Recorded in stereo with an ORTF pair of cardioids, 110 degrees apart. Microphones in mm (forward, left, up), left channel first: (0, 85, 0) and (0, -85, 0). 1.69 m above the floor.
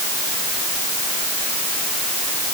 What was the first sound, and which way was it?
Only background noise.